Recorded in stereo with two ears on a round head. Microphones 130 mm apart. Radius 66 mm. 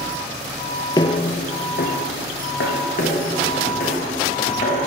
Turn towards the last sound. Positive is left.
turn(degrees=60)  # may be behind; listen again after turning